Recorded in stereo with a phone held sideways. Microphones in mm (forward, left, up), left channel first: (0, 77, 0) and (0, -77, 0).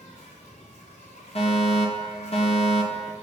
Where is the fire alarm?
40° left (ahead or behind), 2 m.